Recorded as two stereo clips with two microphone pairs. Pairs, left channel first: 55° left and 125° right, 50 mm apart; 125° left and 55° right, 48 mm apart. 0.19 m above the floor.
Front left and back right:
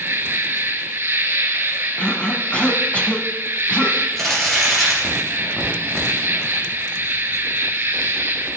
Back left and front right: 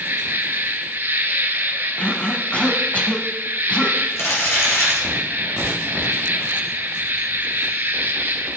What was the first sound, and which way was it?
An insect, 90° right.